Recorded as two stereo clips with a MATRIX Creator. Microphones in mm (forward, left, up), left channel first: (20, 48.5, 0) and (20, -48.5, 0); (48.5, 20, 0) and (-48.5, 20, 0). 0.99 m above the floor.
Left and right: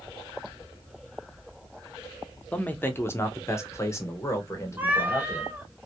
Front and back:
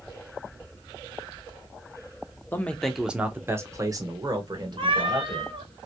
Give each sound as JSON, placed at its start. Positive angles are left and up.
{"t": 2.5, "sound": "a man speaking", "azimuth_deg": 40, "distance_m": 0.6}
{"t": 4.8, "sound": "a cat meowing", "azimuth_deg": -160, "distance_m": 0.7}